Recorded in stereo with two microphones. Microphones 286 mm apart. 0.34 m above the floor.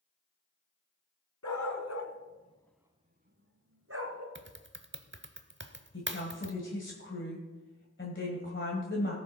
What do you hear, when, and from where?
1.4 s a dog barking: 75° left (ahead or behind), 1.5 m; by 4.2 s 60° right (ahead or behind), 2.0 m
4.3 s typing on a keyboard: 40° right (ahead or behind), 0.7 m
5.9 s a woman speaking: 40° left (ahead or behind), 1.9 m